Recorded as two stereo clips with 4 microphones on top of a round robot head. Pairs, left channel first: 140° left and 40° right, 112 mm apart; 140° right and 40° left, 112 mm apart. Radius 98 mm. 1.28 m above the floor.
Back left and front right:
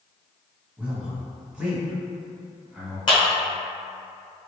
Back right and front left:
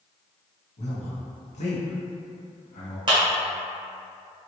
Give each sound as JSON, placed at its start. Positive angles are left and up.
{"t": 0.8, "sound": "a man speaking", "azimuth_deg": -120, "distance_m": 1.2}
{"t": 3.1, "sound": "a clap", "azimuth_deg": 90, "distance_m": 1.2}